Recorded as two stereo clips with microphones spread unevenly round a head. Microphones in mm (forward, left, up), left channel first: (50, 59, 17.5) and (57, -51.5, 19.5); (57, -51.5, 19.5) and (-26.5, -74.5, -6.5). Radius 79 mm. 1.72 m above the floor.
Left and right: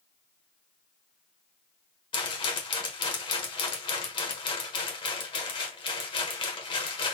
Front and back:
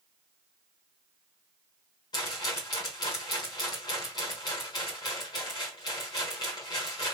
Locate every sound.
2.1 s a rattle: 55° left, 1.5 m